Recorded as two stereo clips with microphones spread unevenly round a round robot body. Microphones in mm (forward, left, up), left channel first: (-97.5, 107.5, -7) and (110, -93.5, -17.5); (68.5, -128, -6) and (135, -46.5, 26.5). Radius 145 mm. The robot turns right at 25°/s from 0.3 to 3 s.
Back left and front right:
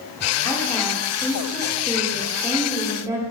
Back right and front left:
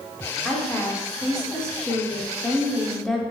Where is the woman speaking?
165° right, 0.7 m; by 3.2 s 100° right, 0.7 m.